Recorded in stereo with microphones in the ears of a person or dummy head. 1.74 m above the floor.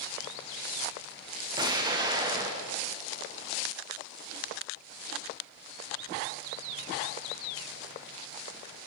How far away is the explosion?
About 1.0 m.